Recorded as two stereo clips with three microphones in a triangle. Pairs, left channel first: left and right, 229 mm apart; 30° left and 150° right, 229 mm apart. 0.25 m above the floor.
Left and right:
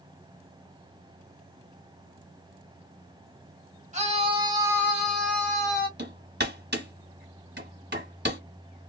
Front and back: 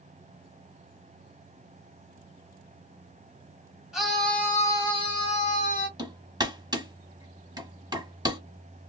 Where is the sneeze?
I don't hear a sneeze.